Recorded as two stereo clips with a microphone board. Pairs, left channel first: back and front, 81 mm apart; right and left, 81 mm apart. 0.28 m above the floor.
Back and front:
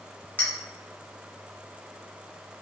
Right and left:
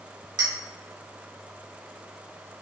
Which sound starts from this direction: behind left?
A clink, at 0.4 s.